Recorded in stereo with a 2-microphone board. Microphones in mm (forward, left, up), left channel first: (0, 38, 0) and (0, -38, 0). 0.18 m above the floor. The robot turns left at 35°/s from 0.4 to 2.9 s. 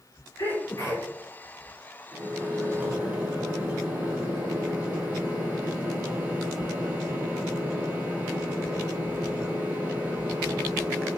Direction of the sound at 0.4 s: 55° left (ahead or behind).